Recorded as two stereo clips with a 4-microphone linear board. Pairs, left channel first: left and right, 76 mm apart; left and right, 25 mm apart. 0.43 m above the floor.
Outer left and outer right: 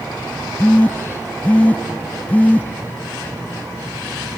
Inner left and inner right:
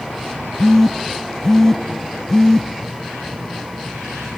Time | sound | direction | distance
0.6 | a phone buzzing | 20° left (ahead or behind) | 0.6 m